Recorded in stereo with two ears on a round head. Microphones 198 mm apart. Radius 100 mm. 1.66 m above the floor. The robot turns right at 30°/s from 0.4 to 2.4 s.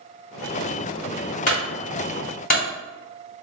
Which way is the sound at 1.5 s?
35° left (ahead or behind).